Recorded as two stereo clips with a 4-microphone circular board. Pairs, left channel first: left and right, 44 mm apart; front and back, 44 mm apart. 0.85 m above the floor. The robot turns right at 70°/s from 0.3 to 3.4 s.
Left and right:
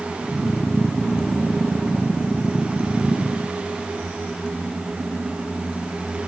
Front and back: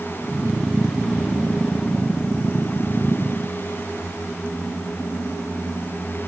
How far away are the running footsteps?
I don't hear running footsteps.